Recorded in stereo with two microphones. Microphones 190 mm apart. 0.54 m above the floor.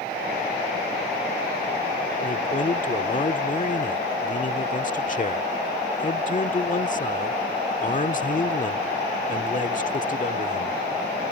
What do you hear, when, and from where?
2.2 s a man speaking: 45° left (ahead or behind)